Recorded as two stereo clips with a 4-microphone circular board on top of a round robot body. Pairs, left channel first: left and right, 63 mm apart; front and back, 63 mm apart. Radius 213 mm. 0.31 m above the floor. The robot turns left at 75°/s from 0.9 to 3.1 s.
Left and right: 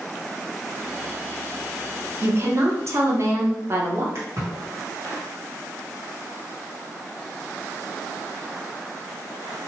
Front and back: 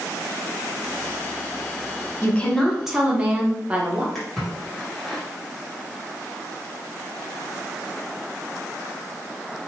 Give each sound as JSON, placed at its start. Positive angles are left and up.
{"t": 2.2, "sound": "a woman speaking", "azimuth_deg": -50, "distance_m": 1.1}
{"t": 4.2, "sound": "a splash", "azimuth_deg": -85, "distance_m": 1.9}